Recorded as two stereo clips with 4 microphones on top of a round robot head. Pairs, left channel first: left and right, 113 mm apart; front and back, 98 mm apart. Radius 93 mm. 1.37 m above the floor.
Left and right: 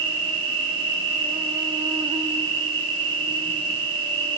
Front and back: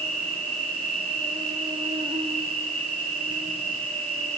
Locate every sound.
0.0 s an insect: 135° right, 3 m